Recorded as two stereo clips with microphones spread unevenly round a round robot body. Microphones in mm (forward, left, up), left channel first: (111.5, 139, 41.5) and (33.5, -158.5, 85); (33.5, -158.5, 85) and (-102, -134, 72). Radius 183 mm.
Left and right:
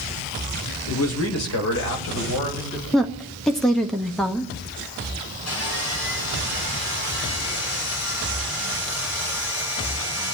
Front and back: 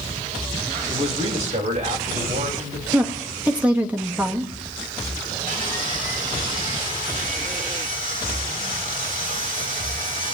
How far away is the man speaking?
About 1.7 m.